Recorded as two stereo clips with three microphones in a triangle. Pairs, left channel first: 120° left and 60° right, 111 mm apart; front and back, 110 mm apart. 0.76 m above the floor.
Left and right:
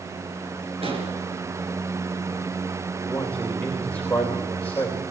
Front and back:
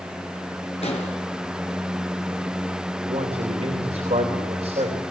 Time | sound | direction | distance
0.8 | an explosion | 25° right | 5 m
3.1 | a man speaking | 160° right | 3.5 m